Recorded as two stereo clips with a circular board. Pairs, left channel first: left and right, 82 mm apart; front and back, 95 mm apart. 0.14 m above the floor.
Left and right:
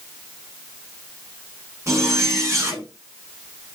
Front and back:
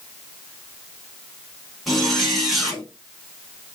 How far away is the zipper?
About 0.8 m.